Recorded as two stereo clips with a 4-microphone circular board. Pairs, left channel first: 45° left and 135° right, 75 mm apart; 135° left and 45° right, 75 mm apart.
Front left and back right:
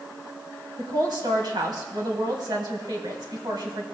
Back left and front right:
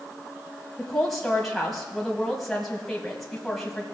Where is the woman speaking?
140° right, 2.5 m.